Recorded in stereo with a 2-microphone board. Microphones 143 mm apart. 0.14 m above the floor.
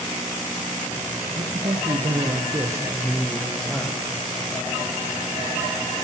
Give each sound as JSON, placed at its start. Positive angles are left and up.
{"t": 1.4, "sound": "a man speaking", "side_deg": -60, "distance_m": 3.0}